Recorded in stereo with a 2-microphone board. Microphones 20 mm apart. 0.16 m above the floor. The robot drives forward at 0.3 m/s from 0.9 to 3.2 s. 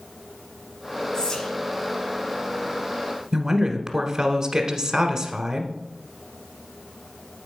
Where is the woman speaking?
35° right (ahead or behind), 1.2 m.